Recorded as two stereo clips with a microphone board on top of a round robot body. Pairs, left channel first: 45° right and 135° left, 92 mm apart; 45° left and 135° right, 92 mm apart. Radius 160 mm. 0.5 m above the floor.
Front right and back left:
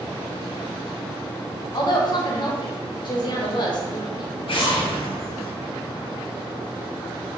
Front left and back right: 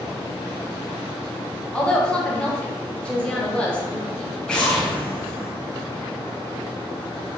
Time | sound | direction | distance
1.7 | a woman speaking | 30° right | 1.0 m
4.5 | an explosion | 35° right | 0.8 m